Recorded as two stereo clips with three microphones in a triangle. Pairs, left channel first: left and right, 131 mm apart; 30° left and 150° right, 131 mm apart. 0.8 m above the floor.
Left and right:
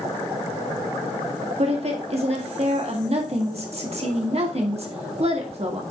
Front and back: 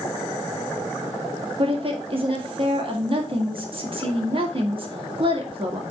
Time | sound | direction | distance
1.6 | a woman speaking | 110° right | 1.8 m